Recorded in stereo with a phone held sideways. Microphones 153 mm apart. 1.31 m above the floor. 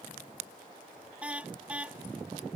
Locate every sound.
1.2 s a car horn: 10° right (ahead or behind)